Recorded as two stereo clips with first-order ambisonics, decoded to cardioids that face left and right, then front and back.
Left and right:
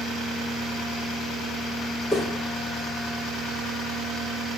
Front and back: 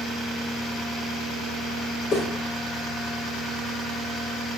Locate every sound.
2.1 s footsteps: 20° left, 1.5 m